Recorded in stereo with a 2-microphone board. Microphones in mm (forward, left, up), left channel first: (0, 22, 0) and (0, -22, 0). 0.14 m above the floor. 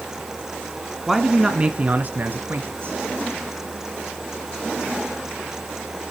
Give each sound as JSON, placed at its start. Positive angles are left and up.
{"t": 1.1, "sound": "a man speaking", "side_deg": 0, "distance_m": 1.2}